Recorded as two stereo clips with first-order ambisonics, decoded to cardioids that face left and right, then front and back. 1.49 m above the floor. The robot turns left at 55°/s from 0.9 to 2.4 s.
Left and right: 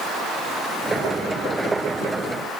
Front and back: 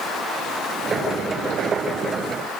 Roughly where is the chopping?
No chopping in this recording.